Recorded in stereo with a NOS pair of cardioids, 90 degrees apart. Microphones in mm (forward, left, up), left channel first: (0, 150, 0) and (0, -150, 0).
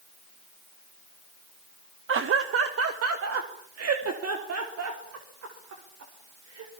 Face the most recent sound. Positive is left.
turn(degrees=-60)